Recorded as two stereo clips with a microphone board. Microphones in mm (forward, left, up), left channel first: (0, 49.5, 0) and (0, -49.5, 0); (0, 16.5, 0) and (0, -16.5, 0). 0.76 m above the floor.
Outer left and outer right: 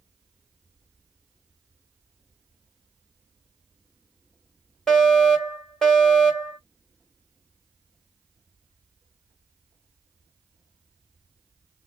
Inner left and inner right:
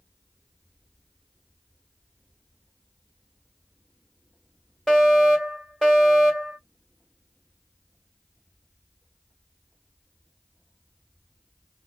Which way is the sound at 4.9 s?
5° left (ahead or behind).